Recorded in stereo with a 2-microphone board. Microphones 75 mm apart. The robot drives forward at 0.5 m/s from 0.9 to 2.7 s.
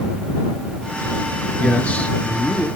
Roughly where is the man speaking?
Centre.